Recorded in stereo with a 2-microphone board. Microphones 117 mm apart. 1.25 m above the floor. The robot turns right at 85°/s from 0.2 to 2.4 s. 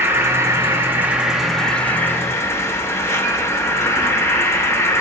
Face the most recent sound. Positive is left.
turn(degrees=20)  # may be behind; listen again after turning